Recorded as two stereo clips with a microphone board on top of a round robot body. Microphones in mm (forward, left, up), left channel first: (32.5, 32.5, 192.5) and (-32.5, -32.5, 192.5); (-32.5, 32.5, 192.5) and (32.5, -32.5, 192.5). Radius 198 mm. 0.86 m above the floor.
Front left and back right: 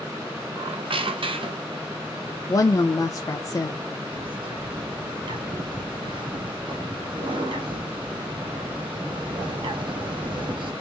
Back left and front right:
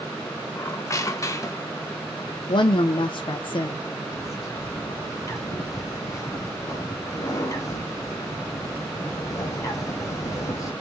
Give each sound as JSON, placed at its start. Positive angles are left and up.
{"t": 0.6, "sound": "a squeak", "azimuth_deg": -165, "distance_m": 0.8}
{"t": 2.5, "sound": "a woman speaking", "azimuth_deg": 100, "distance_m": 0.6}
{"t": 4.1, "sound": "a bird", "azimuth_deg": -170, "distance_m": 1.5}